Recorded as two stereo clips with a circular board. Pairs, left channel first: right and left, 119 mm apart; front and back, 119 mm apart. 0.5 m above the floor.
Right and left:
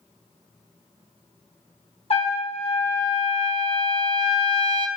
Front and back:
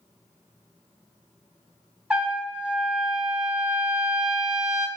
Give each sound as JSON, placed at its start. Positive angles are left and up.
{"t": 2.1, "sound": "a trumpet", "azimuth_deg": -100, "distance_m": 0.6}